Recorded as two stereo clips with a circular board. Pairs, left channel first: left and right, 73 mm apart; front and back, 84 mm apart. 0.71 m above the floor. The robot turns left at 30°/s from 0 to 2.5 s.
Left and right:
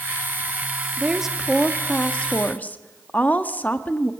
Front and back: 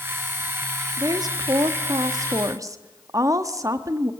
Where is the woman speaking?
165° right, 1.3 m; by 4.1 s 150° left, 1.3 m.